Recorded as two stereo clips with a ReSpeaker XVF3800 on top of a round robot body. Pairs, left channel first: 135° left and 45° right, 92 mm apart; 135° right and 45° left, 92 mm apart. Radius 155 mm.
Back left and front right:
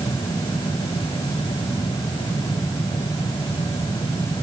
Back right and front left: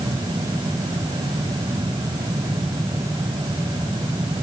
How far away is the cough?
No cough in this recording.